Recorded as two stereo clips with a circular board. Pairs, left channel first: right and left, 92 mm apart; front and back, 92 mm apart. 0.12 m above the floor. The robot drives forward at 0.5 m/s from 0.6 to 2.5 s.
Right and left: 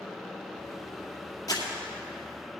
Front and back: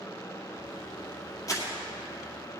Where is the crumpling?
45° right, 2.0 m; by 1.7 s 50° right, 1.9 m.